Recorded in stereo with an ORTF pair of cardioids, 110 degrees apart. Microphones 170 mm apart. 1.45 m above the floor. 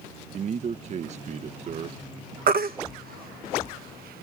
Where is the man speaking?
45° right.